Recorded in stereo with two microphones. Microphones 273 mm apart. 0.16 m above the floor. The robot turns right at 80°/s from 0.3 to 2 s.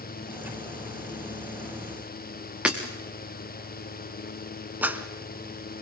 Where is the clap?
5° right (ahead or behind), 1.2 m.